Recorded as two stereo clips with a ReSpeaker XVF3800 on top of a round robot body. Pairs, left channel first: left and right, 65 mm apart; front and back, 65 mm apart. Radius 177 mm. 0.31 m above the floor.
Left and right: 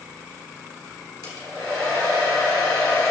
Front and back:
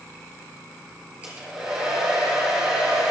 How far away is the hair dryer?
About 3 m.